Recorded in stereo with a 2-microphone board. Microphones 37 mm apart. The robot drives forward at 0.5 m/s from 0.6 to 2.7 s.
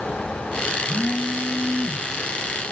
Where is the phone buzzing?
25° left (ahead or behind), 5.5 m; by 2.1 s 20° left (ahead or behind), 6 m.